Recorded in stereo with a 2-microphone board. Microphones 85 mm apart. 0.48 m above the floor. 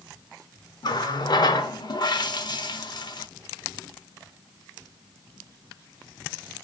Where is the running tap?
55° left (ahead or behind), 0.8 m.